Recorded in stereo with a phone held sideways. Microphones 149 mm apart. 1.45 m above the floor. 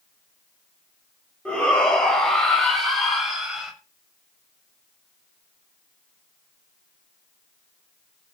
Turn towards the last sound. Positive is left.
turn(degrees=-5)  # may be behind; listen again after turning